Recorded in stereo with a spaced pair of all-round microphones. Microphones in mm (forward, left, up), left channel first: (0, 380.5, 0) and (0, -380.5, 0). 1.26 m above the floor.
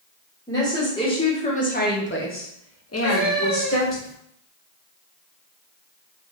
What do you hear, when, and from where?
0.5 s a woman speaking: 5° left (ahead or behind), 1.2 m; by 4.0 s 15° left (ahead or behind), 0.8 m
3.0 s a cat meowing: 30° right (ahead or behind), 1.2 m